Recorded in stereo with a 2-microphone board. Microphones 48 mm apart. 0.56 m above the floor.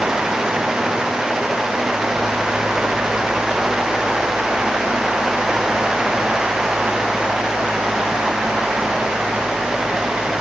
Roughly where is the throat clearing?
I don't hear throat clearing.